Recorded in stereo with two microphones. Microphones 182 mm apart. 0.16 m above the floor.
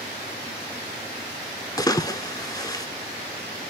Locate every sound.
1.8 s a splash: 20° left (ahead or behind), 0.6 m